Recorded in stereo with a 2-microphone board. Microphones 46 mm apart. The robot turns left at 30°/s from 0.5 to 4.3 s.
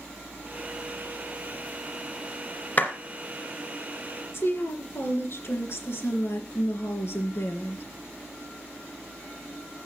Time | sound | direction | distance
2.8 | a clap | 35° left (ahead or behind) | 2 m
4.3 | a woman speaking | 60° left (ahead or behind) | 3 m